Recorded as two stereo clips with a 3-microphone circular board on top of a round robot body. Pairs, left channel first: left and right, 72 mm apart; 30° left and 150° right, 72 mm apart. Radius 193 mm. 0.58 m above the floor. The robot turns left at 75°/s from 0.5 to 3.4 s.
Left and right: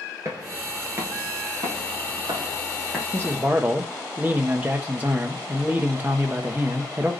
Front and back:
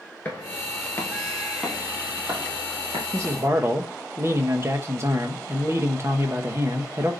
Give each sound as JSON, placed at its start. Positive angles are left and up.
{"t": 0.2, "sound": "footsteps", "azimuth_deg": -35, "distance_m": 0.6}
{"t": 3.1, "sound": "a man speaking", "azimuth_deg": -120, "distance_m": 1.1}